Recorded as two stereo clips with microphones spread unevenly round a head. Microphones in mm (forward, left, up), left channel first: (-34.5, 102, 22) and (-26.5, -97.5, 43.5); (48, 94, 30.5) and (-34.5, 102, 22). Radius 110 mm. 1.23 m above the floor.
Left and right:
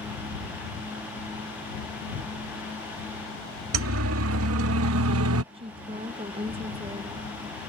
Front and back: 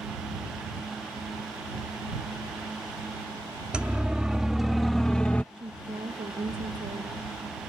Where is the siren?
100° right; by 5.4 s 85° right.